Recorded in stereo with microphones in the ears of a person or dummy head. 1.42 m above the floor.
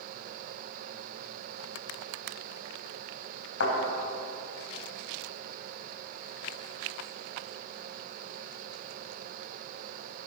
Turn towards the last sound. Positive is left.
turn(degrees=80)